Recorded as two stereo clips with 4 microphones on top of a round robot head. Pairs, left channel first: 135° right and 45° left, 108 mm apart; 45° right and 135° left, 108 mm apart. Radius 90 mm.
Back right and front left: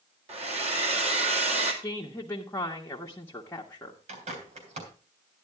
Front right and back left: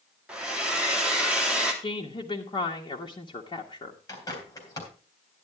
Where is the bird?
20° left, 3.5 m.